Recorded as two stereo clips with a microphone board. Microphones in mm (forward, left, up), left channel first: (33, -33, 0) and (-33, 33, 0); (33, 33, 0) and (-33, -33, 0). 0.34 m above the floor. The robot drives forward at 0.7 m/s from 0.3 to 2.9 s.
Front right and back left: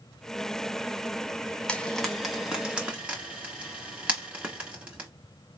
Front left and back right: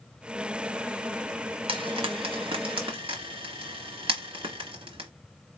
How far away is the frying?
About 1.2 m.